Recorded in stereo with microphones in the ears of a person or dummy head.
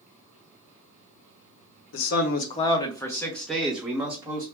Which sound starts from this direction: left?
A man speaking, at 1.9 s.